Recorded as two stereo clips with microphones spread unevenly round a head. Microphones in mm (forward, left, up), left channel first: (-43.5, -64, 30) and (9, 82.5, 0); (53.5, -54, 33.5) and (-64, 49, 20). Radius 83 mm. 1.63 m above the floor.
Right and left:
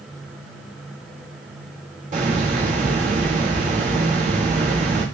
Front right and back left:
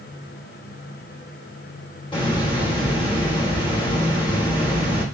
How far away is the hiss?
About 3.5 m.